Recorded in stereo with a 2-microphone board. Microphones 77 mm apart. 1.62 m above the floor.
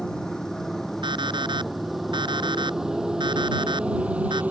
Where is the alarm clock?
80° right.